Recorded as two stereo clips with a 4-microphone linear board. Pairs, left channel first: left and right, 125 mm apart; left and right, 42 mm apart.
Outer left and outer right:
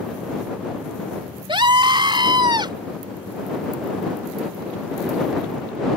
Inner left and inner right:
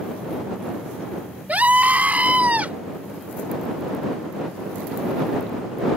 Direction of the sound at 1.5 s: 40° right (ahead or behind).